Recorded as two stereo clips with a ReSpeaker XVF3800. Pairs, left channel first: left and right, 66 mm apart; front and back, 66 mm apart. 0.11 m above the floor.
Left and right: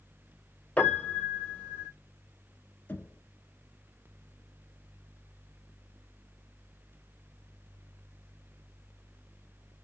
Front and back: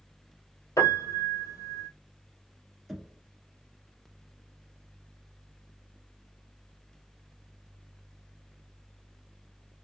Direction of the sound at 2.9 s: 100° left.